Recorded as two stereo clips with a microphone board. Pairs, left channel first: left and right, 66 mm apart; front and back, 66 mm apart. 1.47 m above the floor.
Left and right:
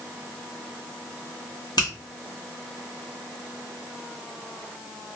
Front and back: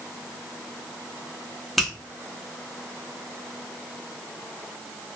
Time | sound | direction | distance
1.8 | a finger snap | 85° left | 0.8 m